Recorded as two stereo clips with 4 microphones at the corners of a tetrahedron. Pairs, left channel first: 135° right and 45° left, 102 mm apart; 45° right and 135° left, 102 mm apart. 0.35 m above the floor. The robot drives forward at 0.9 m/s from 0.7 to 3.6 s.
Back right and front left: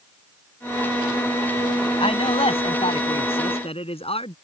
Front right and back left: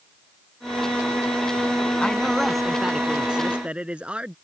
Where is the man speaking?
125° right; by 4.3 s 145° right.